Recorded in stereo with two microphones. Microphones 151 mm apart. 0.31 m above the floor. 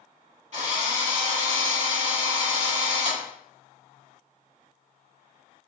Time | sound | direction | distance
0.5 | a drill | 55° right (ahead or behind) | 2 m